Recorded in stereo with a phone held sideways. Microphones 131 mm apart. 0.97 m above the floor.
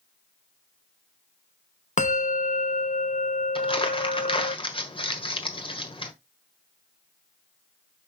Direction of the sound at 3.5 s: 40° left (ahead or behind).